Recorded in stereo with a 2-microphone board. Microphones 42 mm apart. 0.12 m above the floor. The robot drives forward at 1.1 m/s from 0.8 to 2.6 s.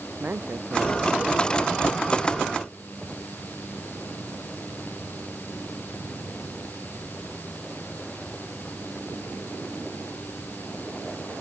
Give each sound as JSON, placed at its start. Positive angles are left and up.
{"t": 0.2, "sound": "a man speaking", "side_deg": -45}